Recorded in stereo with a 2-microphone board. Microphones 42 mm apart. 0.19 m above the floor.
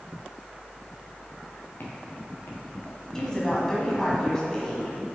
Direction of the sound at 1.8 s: 55° left (ahead or behind).